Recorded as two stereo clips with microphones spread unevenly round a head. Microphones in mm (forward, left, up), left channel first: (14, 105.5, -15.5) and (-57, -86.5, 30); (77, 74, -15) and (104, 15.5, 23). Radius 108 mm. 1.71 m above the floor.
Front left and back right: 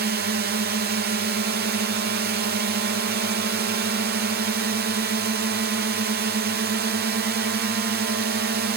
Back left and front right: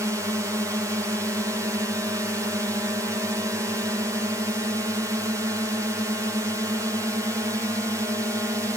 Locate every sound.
0.0 s a drone: 135° right